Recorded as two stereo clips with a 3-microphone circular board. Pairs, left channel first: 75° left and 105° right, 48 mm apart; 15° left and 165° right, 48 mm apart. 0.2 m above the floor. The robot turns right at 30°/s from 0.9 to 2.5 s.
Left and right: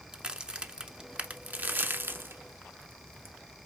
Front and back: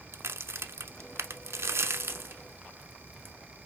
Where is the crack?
170° right, 0.6 m; by 3.4 s 125° right, 0.6 m.